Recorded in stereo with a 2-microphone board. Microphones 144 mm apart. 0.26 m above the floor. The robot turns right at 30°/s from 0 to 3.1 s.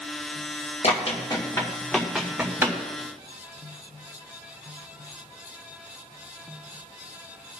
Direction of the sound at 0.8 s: 50° left (ahead or behind).